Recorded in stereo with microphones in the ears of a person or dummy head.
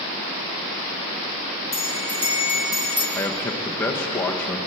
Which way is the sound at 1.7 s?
15° right (ahead or behind).